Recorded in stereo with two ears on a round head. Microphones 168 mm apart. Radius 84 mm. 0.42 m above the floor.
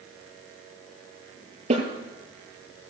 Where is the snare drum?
40° right (ahead or behind), 6.5 m.